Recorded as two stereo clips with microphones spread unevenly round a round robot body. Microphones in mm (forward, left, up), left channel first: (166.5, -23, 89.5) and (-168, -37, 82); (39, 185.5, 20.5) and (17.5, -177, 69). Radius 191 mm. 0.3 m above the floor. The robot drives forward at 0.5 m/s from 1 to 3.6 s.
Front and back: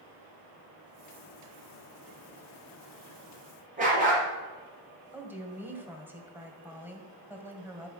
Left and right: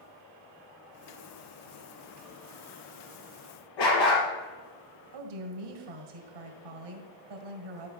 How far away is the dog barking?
About 3 m.